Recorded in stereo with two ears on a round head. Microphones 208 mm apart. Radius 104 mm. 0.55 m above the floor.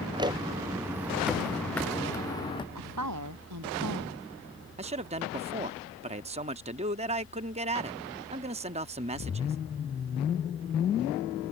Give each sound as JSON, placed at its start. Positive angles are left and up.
{"t": 0.1, "sound": "footsteps", "side_deg": -20}
{"t": 2.8, "sound": "a woman speaking", "side_deg": -85}
{"t": 4.8, "sound": "a man speaking", "side_deg": -25}